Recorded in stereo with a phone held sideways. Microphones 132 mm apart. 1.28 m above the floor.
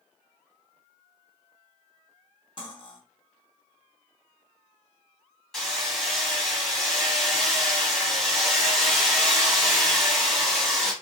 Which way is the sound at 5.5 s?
Centre (ahead or behind).